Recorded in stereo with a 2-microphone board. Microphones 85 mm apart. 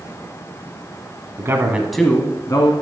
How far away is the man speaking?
About 1.2 m.